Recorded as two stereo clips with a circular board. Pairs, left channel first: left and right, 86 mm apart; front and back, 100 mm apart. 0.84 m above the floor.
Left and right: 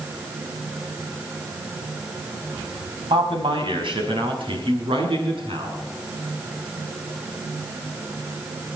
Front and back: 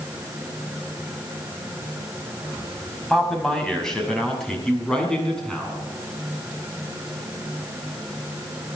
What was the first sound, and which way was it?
A man speaking, 85° right.